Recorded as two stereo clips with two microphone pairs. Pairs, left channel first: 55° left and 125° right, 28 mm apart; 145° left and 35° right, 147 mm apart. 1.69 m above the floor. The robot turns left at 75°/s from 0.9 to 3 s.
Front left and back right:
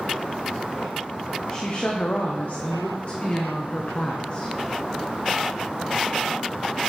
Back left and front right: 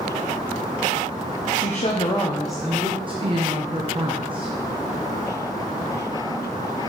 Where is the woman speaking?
125° left, 0.9 m; by 4.5 s 15° left, 0.9 m.